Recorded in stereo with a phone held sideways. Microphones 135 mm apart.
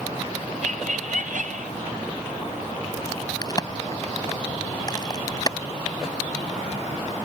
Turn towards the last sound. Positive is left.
turn(degrees=30)  # may be behind; listen again after turning